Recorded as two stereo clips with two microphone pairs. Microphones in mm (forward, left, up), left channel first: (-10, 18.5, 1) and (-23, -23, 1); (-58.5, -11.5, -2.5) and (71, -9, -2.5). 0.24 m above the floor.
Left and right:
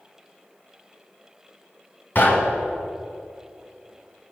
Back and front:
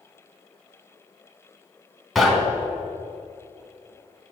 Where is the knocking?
90° left, 1.5 m.